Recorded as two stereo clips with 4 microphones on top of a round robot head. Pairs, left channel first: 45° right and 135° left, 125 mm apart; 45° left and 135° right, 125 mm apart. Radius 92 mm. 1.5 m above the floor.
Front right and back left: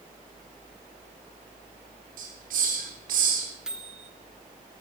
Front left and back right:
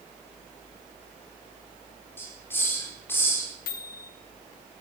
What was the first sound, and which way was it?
A hiss, 120° left.